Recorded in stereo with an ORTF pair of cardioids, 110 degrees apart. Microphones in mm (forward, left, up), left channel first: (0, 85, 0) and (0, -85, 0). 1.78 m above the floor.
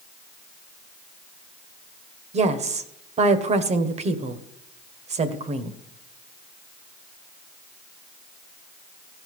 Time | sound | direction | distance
2.3 | a woman speaking | 40° right | 1.6 m